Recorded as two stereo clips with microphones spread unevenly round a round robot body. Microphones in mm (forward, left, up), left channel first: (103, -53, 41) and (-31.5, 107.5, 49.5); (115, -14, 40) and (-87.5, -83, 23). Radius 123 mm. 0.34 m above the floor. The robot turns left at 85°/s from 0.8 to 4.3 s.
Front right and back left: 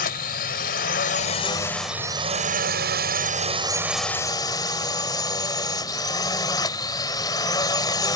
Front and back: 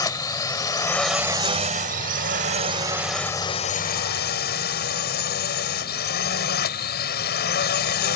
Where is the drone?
50° right; by 8.2 s 15° left.